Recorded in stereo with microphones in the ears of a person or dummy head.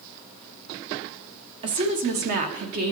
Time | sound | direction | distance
1.6 | a woman speaking | 25° right (ahead or behind) | 0.6 m